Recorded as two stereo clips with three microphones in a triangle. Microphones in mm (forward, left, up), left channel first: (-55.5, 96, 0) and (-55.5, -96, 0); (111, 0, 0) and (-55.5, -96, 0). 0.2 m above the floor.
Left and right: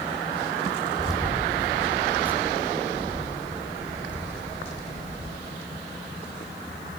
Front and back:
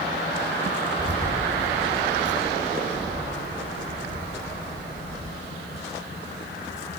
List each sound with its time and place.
1.0 s keys jangling: 175° right, 8 m; by 5.3 s 150° right, 6.5 m